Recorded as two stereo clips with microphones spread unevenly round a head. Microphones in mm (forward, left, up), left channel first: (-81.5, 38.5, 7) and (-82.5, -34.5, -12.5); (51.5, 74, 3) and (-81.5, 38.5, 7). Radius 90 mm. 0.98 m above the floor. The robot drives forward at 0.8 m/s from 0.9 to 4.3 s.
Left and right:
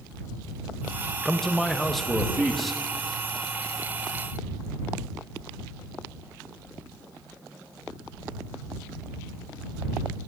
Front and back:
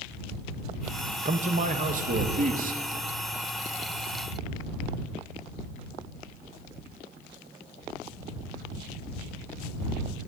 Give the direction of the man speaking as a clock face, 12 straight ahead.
6 o'clock.